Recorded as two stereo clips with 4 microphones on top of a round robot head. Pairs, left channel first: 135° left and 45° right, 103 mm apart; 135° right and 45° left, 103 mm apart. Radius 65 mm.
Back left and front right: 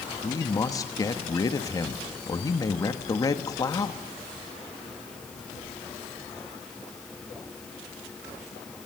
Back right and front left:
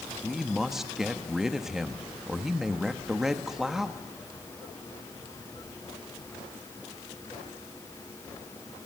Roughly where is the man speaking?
Behind left.